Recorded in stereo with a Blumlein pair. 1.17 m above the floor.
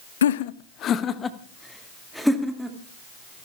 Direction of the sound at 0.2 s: 65° left.